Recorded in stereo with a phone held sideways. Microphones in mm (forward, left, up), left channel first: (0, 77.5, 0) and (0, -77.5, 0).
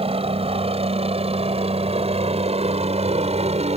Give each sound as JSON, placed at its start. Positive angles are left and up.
{"t": 0.0, "sound": "a helicopter", "side_deg": -40}